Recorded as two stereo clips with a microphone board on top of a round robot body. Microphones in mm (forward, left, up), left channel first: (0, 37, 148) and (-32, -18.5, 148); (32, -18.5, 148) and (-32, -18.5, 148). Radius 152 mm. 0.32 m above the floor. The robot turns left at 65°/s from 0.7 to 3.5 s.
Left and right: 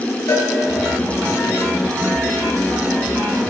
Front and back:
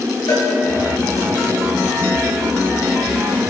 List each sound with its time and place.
0.3 s a cowbell: 25° left, 4 m